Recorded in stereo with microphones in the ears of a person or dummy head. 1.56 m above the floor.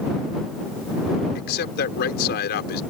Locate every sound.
1.4 s a man speaking: 55° left (ahead or behind)